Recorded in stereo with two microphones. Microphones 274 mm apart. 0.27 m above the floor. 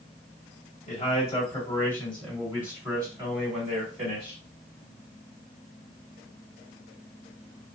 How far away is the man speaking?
About 1.7 m.